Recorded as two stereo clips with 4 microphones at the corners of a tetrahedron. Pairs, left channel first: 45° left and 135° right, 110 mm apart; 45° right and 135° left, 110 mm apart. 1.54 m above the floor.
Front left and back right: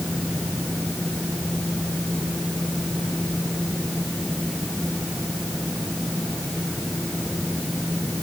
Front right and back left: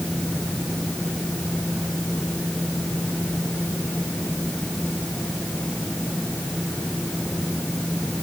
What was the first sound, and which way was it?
Only background noise.